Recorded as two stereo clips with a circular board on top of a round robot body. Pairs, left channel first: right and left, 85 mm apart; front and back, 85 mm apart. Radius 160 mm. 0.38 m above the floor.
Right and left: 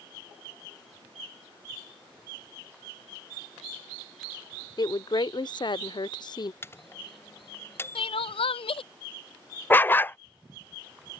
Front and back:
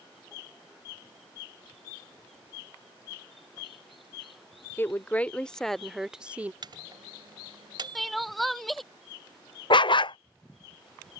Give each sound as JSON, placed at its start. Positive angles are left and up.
{"t": 4.8, "sound": "a woman speaking", "azimuth_deg": -65}
{"t": 6.6, "sound": "a microwave", "azimuth_deg": -150}
{"t": 8.0, "sound": "crying", "azimuth_deg": -90}
{"t": 9.7, "sound": "a dog barking", "azimuth_deg": -25}